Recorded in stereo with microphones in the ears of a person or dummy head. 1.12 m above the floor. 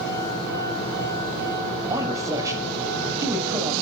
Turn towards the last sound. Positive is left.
turn(degrees=-20)  # may be behind; listen again after turning